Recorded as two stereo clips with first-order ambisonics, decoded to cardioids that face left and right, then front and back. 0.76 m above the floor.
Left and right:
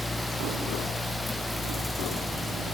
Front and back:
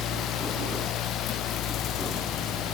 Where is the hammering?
No hammering in this recording.